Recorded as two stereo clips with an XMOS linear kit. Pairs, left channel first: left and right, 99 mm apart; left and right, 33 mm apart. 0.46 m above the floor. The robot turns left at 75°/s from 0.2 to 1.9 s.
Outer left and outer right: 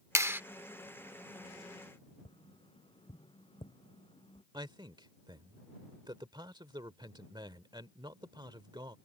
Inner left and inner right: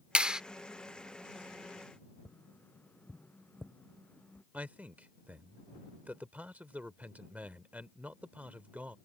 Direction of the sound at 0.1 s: 30° right (ahead or behind).